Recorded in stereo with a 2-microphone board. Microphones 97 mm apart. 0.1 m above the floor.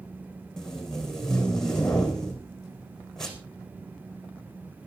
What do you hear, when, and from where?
0.6 s tape being pulled: 5° left (ahead or behind), 3 m